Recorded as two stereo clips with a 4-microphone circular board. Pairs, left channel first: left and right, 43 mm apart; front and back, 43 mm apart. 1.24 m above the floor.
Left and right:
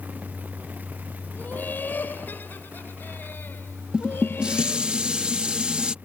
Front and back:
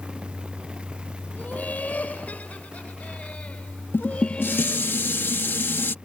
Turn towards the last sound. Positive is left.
turn(degrees=-25)